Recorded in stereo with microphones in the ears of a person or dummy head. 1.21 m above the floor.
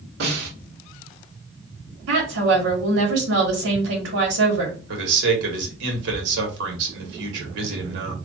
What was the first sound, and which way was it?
A snare drum, 65° right (ahead or behind).